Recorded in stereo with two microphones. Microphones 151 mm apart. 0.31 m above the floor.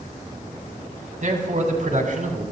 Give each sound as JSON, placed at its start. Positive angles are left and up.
{"t": 1.2, "sound": "a man speaking", "side_deg": -55, "distance_m": 2.5}